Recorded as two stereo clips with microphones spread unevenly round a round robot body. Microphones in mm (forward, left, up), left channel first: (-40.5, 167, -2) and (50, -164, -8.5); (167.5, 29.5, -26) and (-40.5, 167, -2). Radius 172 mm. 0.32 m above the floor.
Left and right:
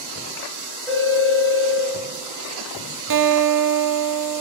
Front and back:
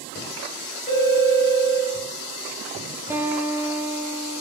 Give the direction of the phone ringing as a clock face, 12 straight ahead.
11 o'clock.